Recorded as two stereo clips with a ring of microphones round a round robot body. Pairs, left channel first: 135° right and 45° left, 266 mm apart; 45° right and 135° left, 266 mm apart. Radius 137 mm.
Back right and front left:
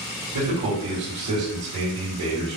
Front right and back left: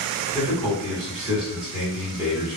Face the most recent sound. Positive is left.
turn(degrees=45)